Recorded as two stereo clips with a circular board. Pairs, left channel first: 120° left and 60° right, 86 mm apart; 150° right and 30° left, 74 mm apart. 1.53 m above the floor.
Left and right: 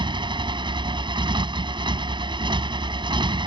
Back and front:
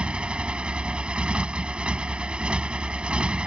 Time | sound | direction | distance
0.0 | a motorcycle | 45° right | ?